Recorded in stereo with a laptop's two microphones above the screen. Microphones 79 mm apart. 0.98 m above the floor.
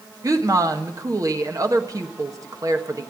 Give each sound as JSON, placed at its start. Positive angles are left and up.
{"t": 0.2, "sound": "a woman speaking", "side_deg": -45, "distance_m": 1.3}